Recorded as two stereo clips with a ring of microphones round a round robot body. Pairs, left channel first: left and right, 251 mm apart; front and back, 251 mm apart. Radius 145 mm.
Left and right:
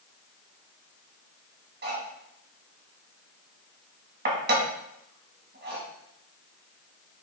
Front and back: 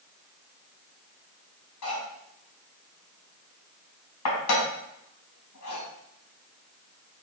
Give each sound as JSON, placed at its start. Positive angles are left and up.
{"t": 1.8, "sound": "cutlery clinking", "azimuth_deg": -40, "distance_m": 4.5}